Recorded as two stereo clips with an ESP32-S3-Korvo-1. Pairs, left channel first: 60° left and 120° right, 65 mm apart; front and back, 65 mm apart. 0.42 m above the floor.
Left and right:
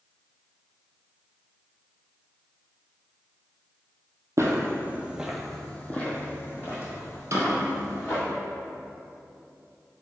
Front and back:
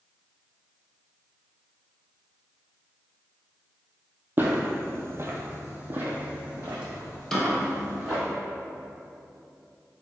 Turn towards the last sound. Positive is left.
turn(degrees=-85)